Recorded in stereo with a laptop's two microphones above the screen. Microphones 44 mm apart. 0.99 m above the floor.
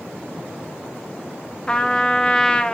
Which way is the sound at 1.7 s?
20° left (ahead or behind).